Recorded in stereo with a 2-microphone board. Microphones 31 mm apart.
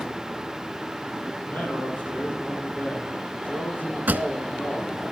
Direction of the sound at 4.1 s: 70° right (ahead or behind).